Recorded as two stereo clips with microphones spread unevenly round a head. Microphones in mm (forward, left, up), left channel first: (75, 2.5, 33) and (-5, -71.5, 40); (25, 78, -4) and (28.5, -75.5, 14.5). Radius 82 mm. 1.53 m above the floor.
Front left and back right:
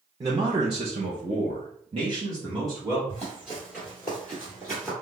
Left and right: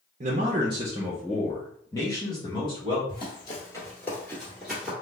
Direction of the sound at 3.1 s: 140° left.